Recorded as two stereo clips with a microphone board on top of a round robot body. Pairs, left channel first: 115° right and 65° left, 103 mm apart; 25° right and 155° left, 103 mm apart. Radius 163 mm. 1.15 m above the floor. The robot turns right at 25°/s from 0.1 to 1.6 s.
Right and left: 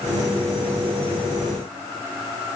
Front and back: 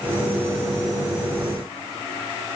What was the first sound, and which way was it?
Only background noise.